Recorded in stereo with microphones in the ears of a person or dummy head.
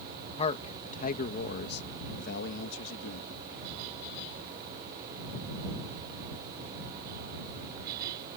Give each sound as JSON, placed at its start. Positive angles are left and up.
{"t": 0.4, "sound": "a man speaking", "side_deg": 30}